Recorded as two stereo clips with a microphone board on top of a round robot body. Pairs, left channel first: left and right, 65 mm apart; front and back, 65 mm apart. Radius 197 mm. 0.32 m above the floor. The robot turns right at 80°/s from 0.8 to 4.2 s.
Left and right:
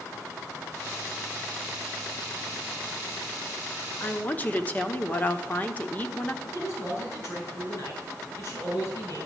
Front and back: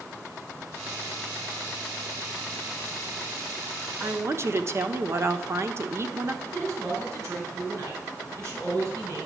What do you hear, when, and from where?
4.0 s a woman speaking: 130° left, 1.6 m; by 6.3 s 150° left, 1.6 m
6.4 s a man speaking: 135° left, 6.5 m